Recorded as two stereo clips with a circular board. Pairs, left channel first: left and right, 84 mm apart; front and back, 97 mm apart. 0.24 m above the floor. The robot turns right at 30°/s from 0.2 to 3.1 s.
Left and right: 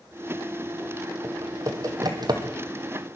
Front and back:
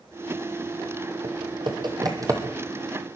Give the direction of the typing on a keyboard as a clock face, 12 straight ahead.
5 o'clock.